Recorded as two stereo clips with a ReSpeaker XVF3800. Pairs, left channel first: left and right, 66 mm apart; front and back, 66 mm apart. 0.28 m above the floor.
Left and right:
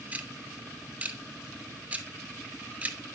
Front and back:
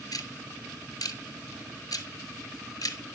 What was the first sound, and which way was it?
Ticking, 20° right.